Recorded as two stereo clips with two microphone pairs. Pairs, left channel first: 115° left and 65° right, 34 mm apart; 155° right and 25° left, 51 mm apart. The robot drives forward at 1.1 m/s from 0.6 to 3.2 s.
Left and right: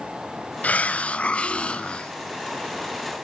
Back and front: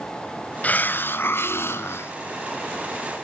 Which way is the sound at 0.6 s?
150° left.